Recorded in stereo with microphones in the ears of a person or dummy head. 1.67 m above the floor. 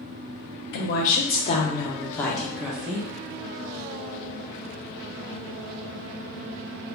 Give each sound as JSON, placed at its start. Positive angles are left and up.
{"t": 0.7, "sound": "a woman speaking", "side_deg": 65, "distance_m": 0.9}